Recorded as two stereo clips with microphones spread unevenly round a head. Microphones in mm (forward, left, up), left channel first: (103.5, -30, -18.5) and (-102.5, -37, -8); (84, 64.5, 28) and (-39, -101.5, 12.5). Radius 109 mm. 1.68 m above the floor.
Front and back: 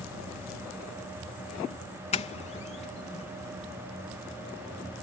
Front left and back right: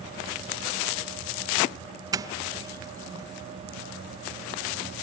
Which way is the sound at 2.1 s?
55° right.